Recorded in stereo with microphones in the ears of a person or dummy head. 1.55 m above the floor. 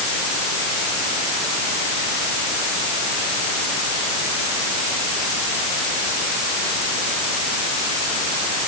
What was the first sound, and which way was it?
Only background noise.